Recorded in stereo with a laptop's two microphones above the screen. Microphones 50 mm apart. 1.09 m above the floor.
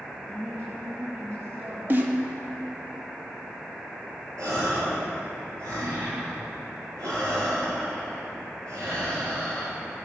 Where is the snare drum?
40° right (ahead or behind), 1.9 m.